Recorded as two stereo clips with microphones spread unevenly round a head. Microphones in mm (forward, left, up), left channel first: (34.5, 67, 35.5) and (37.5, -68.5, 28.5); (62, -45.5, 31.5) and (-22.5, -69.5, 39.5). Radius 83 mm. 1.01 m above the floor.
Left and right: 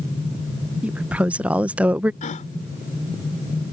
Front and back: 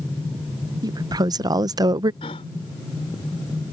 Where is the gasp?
60° left.